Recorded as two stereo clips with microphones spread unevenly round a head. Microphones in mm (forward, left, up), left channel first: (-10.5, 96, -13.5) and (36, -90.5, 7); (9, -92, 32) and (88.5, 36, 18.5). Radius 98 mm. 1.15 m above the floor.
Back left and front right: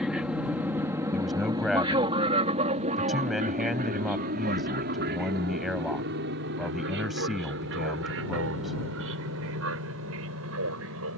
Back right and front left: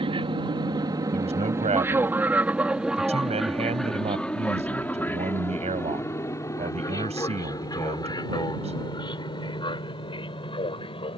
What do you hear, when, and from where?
0.0 s an aircraft: 10° left; by 11.2 s 65° right
1.1 s a man speaking: 10° left